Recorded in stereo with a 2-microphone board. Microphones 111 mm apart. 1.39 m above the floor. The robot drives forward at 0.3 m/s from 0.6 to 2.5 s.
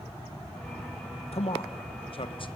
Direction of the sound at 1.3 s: 65° left (ahead or behind).